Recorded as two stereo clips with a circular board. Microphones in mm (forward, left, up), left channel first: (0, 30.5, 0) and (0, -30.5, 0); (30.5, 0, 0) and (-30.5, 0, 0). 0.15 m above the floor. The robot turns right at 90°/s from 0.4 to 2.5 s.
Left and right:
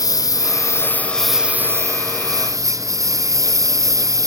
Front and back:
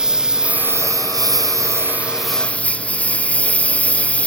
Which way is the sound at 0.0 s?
100° left.